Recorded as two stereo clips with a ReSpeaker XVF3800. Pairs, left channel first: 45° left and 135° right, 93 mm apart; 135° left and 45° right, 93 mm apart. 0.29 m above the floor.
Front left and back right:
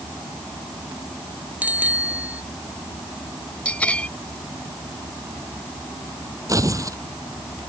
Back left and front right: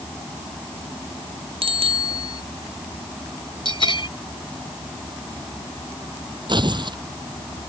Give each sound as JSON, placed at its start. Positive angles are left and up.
{"t": 1.6, "sound": "a bicycle bell", "azimuth_deg": -60}
{"t": 3.6, "sound": "a bell", "azimuth_deg": 120}
{"t": 6.5, "sound": "tearing paper", "azimuth_deg": -80}